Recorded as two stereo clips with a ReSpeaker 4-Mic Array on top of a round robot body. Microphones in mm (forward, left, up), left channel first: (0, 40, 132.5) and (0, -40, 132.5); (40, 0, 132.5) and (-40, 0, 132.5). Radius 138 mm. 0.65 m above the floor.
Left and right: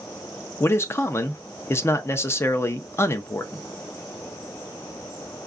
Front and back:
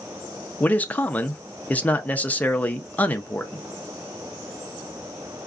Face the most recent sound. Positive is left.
turn(degrees=60)